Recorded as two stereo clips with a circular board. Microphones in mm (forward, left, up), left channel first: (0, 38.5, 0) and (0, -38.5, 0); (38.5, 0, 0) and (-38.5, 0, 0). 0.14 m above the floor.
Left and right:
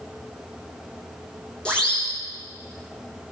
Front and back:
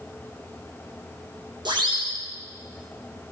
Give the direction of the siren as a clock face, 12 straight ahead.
6 o'clock.